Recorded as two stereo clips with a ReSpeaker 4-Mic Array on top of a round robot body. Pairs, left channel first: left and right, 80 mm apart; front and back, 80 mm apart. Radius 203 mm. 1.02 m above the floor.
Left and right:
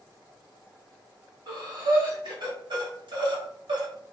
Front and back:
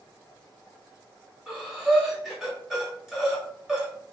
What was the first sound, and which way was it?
Breathing, 95° right.